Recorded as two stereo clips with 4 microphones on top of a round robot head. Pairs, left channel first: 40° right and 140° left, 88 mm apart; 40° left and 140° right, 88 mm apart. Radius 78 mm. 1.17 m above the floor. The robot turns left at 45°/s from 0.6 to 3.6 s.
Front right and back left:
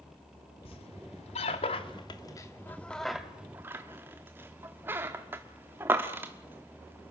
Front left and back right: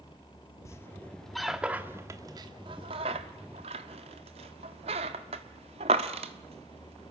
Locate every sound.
0.7 s a squeak: 20° right, 1.2 m; by 7.1 s 150° right, 1.2 m